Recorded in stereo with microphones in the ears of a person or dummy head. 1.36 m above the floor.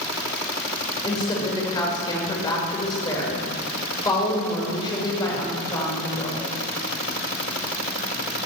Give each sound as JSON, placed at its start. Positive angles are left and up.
{"t": 1.0, "sound": "a woman speaking", "side_deg": 25, "distance_m": 5.5}